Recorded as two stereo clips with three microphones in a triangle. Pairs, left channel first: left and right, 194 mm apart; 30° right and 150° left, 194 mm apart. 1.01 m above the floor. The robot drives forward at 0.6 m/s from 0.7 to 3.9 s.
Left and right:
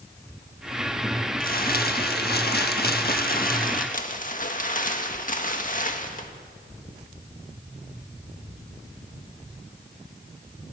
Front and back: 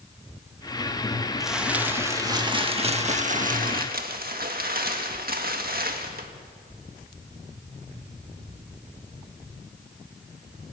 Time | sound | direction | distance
1.4 | crumpling | 60° left | 1.6 m